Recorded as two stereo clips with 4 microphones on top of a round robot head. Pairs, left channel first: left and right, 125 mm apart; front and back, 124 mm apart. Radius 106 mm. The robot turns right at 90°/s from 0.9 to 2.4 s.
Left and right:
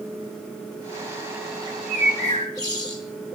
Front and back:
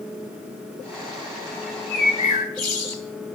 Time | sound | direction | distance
1.7 | a bird | 85° right | 1.3 m